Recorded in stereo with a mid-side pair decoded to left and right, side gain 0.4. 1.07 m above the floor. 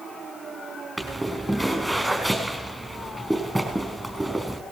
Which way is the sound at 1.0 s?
15° right.